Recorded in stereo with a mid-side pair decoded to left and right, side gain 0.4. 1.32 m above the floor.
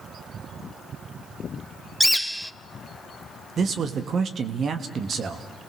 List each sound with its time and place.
2.0 s a bird: 5° left, 0.5 m
3.6 s a man speaking: 55° right, 1.7 m